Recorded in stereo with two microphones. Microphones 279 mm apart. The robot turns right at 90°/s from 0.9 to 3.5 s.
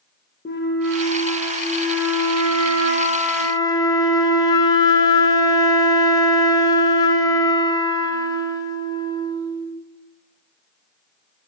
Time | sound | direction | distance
0.5 | a flute | 140° left | 0.7 m